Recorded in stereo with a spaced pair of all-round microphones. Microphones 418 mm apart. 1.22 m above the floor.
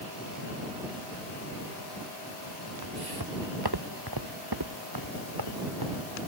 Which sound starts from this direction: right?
Footsteps, at 2.8 s.